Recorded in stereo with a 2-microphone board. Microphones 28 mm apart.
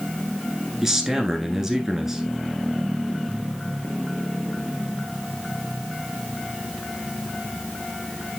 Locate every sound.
0.8 s a man speaking: 15° right (ahead or behind), 1.3 m